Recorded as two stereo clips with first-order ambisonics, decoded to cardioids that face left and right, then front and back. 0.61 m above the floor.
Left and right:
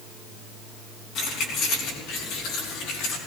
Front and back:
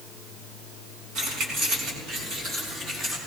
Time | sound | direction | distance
1.1 | keys jangling | 135° left | 4 m